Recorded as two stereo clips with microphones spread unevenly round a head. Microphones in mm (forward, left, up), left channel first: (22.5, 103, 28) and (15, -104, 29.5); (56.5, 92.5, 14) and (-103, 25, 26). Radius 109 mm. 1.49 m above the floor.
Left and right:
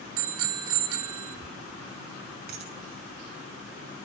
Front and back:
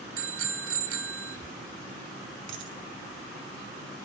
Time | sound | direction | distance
0.2 | a bicycle bell | 120° right | 3.5 m
2.5 | a dropped coin | 140° right | 4.5 m